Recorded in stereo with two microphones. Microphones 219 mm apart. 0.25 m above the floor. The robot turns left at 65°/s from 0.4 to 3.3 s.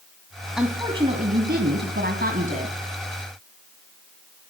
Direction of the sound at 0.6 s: 5° right.